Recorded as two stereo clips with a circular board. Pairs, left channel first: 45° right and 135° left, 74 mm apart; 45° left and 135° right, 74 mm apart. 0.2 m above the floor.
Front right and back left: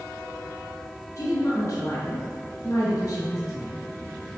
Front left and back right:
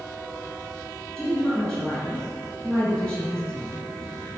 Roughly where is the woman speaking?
Ahead right.